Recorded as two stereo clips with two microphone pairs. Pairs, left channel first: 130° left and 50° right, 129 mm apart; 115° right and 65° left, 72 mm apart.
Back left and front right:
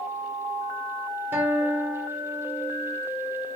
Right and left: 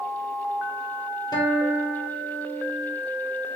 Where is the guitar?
125° right, 1.1 m.